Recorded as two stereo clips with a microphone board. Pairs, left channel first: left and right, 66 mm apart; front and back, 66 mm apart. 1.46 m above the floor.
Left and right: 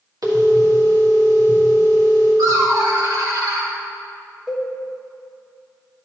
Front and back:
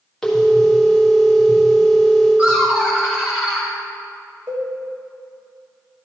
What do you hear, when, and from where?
0.2 s a phone ringing: 80° right, 1.9 m
2.4 s laughter: 105° right, 2 m
4.5 s a cowbell: 160° right, 1.2 m